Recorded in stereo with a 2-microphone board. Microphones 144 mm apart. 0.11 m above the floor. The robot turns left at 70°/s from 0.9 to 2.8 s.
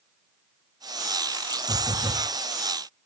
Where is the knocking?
165° right, 9 m; by 2.3 s 150° left, 9 m.